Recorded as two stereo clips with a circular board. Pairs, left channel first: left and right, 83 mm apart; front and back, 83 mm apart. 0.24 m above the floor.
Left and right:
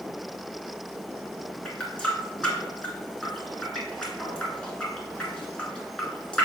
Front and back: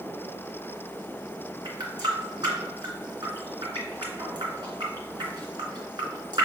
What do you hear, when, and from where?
1.6 s a running tap: 165° left, 2 m